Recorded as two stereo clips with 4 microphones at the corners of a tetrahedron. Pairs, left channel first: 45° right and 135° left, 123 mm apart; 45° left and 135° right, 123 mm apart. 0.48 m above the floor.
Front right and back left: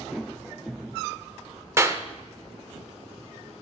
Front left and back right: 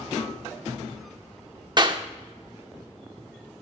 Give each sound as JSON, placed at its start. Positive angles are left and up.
{"t": 1.8, "sound": "a clap", "azimuth_deg": -170, "distance_m": 0.7}